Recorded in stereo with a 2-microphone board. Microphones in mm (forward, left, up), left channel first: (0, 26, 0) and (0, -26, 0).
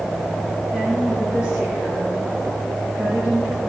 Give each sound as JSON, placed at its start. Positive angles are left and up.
{"t": 0.7, "sound": "a woman speaking", "side_deg": -20, "distance_m": 4.5}